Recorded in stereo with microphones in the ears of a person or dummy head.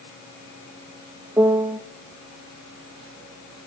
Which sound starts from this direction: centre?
A piano, at 1.4 s.